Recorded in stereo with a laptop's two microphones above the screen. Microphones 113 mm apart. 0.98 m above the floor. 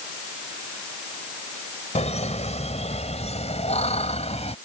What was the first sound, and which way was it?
Laughter, 70° left (ahead or behind).